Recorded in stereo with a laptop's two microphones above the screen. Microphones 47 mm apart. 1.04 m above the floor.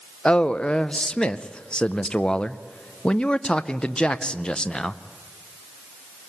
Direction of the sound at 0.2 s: 20° left (ahead or behind).